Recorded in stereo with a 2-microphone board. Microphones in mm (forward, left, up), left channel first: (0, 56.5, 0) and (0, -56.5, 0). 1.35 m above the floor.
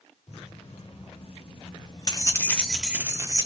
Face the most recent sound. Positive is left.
turn(degrees=-35)  # may be behind; listen again after turning